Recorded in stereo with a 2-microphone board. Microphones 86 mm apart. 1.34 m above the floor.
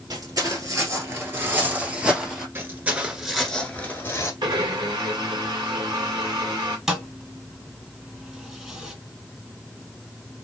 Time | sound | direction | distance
0.1 | footsteps | 45° right (ahead or behind) | 1.8 m
2.5 | footsteps | 30° right (ahead or behind) | 1.4 m
4.4 | a blender | 60° right (ahead or behind) | 2.0 m
6.9 | a thud | 5° right (ahead or behind) | 1.3 m